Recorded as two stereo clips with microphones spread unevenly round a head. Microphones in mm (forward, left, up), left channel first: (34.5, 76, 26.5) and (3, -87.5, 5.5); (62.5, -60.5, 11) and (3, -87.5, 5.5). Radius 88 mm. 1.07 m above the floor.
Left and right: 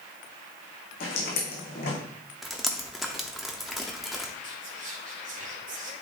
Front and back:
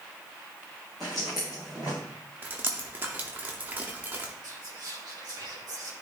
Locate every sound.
1.0 s footsteps: 115° left, 3 m
2.4 s dripping: 155° left, 0.6 m
4.4 s whispering: 145° right, 2 m